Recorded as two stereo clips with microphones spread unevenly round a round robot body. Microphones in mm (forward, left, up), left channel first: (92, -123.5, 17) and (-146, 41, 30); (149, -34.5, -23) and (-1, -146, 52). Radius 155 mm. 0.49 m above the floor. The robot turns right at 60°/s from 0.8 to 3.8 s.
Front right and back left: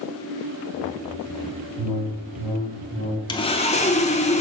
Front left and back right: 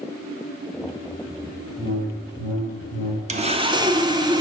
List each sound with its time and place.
1.8 s a whoosh: 120° left, 3 m; by 3.2 s 155° right, 3 m
3.3 s sawing: 80° right, 0.6 m; by 4.4 s 50° right, 0.6 m